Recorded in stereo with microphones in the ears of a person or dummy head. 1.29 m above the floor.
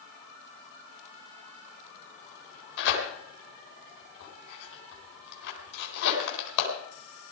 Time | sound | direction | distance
2.8 | tearing paper | 70° left (ahead or behind) | 4 m